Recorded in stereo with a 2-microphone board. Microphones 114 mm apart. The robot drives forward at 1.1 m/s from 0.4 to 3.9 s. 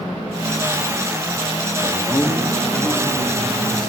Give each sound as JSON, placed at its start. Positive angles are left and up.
{"t": 1.8, "sound": "a man speaking", "side_deg": 25, "distance_m": 1.0}